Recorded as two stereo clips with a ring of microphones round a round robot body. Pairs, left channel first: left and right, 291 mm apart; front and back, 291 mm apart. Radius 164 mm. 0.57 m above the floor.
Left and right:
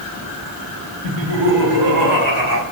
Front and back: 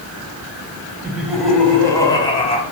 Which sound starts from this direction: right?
Laughter, at 1.0 s.